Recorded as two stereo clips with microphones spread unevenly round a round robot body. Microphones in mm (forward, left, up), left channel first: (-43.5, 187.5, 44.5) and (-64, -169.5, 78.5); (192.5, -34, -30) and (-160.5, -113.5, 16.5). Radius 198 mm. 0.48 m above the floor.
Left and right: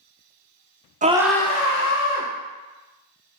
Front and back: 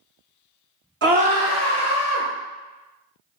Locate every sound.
1.0 s a scream: 145° right, 0.7 m; by 2.3 s 70° left, 1.1 m